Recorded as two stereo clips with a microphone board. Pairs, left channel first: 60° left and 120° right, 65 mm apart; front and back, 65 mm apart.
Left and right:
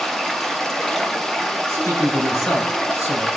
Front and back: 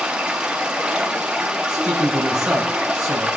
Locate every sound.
0.0 s running water: 130° left, 0.9 m
1.7 s a man speaking: 105° left, 4 m